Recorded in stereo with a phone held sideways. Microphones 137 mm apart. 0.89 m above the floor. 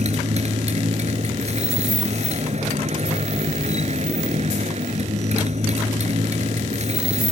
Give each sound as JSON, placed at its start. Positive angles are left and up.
{"t": 0.0, "sound": "a motorcycle", "side_deg": -55}